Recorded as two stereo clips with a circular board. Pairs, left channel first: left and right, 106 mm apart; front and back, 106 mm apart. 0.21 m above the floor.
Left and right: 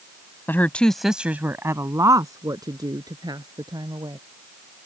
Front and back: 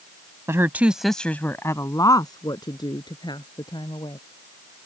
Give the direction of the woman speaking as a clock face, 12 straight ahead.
7 o'clock.